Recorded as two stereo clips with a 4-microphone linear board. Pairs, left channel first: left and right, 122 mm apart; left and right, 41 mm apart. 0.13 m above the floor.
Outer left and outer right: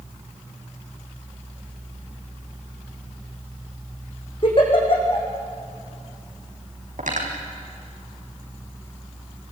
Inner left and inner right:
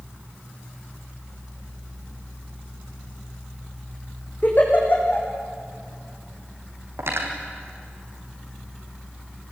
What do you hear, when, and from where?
4.4 s a giggle: 40° left (ahead or behind), 4.5 m
7.0 s cutlery clinking: 80° right, 3.5 m